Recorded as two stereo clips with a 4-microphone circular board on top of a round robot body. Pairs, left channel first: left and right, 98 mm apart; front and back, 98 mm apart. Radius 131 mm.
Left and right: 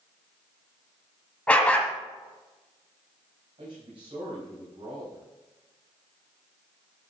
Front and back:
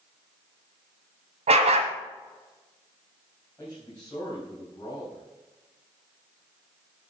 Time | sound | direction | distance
1.5 | a dog barking | 170° left | 1.3 m
3.6 | a man speaking | 65° right | 4.5 m